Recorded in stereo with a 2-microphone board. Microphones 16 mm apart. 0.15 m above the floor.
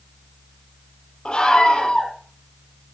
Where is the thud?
No thud in this recording.